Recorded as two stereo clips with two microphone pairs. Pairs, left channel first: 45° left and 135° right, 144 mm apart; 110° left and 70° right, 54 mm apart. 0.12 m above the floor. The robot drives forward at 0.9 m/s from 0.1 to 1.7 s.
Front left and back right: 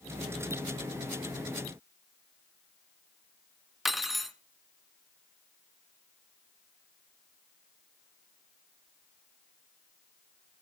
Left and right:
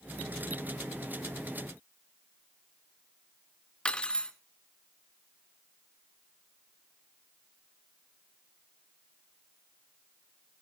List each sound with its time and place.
3.9 s cutlery clinking: 135° left, 0.6 m